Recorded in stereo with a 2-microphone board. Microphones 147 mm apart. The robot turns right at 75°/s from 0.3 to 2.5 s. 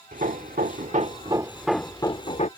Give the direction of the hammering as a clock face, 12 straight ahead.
4 o'clock.